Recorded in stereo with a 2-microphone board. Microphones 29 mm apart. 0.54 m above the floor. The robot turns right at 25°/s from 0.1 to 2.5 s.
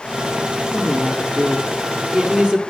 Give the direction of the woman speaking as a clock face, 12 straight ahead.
5 o'clock.